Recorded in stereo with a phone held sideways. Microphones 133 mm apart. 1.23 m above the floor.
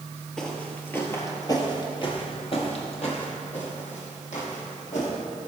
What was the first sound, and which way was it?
Footsteps, 5° left (ahead or behind).